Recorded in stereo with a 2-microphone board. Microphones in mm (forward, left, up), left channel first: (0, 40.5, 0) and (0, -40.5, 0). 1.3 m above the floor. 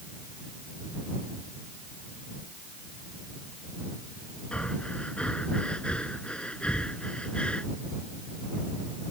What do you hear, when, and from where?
4.5 s breathing: 15° left (ahead or behind)